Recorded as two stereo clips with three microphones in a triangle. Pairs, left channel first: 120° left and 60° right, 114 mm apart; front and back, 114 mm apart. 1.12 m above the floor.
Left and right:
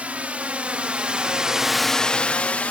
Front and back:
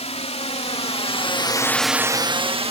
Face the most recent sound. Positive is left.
turn(degrees=-165)